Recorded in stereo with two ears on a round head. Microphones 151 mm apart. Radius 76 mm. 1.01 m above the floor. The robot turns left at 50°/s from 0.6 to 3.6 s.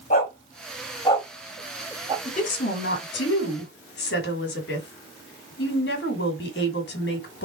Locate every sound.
0.1 s a dog barking: 45° left (ahead or behind), 2 m; by 2.1 s 30° right (ahead or behind), 2 m
2.2 s a woman speaking: 145° left, 1.9 m; by 7.5 s 75° left, 1.9 m